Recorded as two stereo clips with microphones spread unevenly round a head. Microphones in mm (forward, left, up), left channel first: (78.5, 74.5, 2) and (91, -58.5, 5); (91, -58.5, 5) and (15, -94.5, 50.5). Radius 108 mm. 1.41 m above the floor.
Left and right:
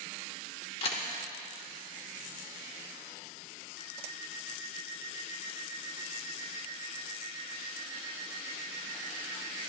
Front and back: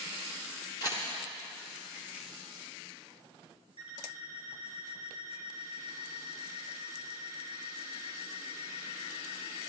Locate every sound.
0.8 s a camera shutter: 110° left, 1.2 m
3.8 s an alarm clock: 95° left, 2.5 m